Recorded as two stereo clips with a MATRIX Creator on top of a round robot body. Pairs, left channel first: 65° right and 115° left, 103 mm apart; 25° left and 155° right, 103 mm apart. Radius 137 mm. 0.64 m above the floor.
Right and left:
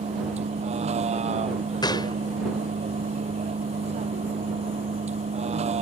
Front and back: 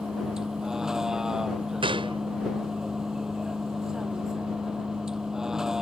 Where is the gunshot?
120° right.